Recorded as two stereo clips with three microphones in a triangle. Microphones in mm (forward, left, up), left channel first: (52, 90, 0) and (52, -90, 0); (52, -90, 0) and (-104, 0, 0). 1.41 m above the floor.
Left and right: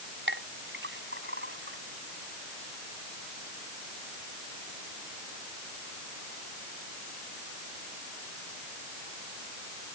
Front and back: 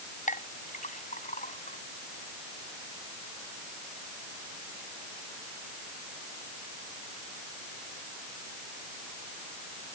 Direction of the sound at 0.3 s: 80° right.